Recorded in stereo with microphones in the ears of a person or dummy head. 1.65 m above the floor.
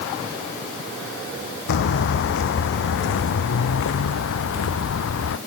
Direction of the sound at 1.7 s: 65° left (ahead or behind).